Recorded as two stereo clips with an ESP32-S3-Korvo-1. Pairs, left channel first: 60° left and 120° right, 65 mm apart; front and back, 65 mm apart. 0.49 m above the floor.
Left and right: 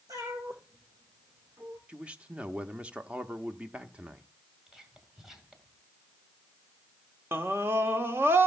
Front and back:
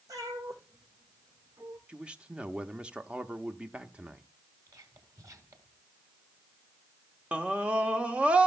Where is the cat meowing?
145° right, 6 m; by 1.8 s 160° right, 5 m.